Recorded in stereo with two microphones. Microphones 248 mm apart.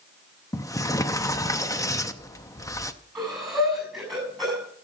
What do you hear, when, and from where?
0.5 s a sliding door: 15° left (ahead or behind), 0.6 m
3.1 s breathing: centre (ahead or behind), 7 m